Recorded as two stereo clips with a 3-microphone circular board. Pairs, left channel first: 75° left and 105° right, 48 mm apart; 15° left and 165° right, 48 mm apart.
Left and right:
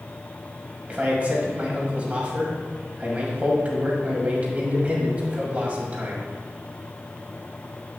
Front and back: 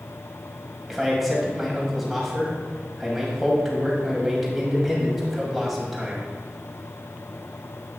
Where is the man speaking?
80° right, 1.8 m.